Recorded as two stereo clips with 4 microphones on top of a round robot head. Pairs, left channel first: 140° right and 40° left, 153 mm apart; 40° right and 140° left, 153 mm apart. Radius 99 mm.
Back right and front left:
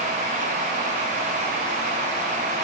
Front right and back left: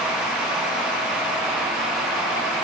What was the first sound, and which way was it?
Only background noise.